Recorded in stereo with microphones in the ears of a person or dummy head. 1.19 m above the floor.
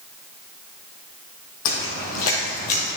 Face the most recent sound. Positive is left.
turn(degrees=35)  # may be behind; listen again after turning